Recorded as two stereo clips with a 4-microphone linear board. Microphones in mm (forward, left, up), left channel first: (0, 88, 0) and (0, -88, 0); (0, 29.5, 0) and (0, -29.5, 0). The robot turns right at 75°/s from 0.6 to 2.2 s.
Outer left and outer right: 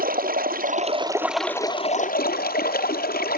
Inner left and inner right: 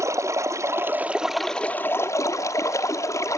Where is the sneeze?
No sneeze in this recording.